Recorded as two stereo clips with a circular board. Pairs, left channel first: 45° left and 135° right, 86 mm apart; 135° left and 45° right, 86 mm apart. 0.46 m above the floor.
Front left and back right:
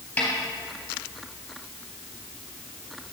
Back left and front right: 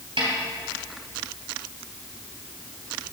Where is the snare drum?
30° right, 3 m.